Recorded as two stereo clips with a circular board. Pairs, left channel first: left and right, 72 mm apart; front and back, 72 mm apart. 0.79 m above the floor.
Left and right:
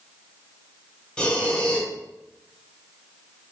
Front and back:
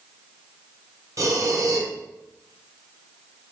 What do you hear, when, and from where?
1.2 s breathing: 160° left, 0.6 m